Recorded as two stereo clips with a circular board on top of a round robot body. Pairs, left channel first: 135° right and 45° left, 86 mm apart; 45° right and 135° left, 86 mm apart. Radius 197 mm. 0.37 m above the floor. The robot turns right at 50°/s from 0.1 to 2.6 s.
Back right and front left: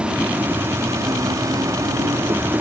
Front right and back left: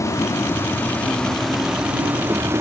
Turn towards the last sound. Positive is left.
turn(degrees=100)